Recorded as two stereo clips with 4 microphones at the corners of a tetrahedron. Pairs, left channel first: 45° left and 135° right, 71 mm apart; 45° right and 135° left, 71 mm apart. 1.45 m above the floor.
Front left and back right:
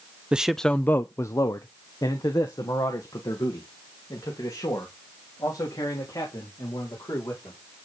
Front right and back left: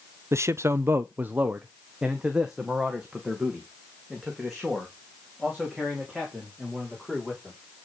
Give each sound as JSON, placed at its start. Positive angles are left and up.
{"t": 0.3, "sound": "a man speaking", "azimuth_deg": 155, "distance_m": 0.5}